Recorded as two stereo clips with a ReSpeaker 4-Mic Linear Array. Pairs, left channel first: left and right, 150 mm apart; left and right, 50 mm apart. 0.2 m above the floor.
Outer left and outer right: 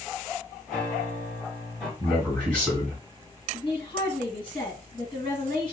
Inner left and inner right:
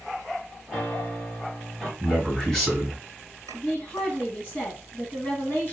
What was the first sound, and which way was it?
A piano, centre (ahead or behind).